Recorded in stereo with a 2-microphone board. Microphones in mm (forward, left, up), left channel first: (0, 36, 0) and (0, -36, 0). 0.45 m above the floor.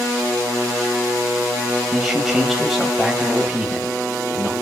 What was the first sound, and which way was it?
A man speaking, centre (ahead or behind).